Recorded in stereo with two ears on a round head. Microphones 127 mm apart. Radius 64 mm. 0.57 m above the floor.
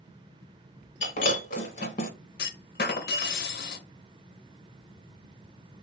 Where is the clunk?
85° left, 0.7 m.